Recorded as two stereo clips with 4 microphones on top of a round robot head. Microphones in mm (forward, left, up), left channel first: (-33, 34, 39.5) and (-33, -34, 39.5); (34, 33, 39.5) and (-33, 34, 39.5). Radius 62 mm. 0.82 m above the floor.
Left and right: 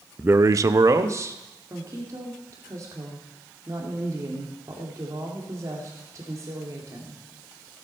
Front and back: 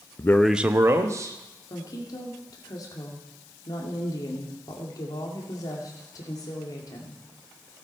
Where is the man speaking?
30° right, 0.5 m; by 1.4 s 140° right, 1.5 m.